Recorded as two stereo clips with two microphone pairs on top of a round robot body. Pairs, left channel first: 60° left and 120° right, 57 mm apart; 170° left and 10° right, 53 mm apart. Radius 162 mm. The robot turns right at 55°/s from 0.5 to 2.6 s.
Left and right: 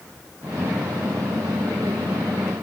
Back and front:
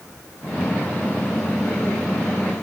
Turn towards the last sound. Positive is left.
No sound to turn to.